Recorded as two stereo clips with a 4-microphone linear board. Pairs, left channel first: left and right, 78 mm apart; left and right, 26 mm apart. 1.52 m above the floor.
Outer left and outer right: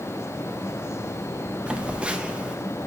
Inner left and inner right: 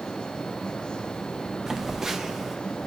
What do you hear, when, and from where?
1.7 s a phone buzzing: 15° right (ahead or behind), 0.7 m